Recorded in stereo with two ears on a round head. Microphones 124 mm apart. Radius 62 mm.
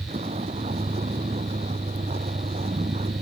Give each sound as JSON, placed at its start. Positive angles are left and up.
{"t": 0.0, "sound": "a vehicle", "side_deg": -45}